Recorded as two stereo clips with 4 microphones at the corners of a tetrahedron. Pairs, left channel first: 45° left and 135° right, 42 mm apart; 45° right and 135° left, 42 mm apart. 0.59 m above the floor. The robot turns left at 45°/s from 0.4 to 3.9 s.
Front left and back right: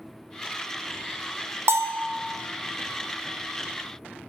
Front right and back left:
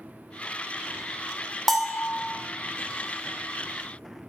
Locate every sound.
1.7 s a bell: 130° right, 0.7 m; by 2.1 s 150° right, 0.7 m